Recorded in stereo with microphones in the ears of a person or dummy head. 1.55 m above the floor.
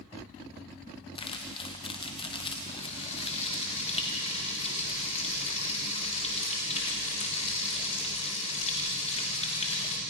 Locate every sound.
1.1 s crumpling: 25° left (ahead or behind), 1.9 m
2.7 s frying: 35° left (ahead or behind), 3 m